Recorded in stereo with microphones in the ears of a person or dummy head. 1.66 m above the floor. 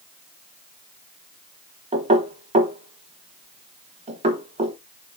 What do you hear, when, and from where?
1.9 s knocking: 25° right (ahead or behind), 1.0 m